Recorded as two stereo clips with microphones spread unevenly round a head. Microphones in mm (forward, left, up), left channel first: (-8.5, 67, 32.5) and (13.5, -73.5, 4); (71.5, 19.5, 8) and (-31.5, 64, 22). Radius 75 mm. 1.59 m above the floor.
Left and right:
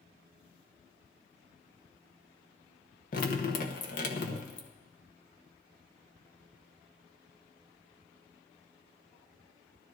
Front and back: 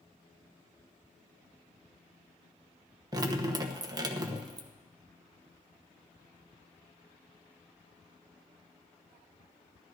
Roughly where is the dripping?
Left.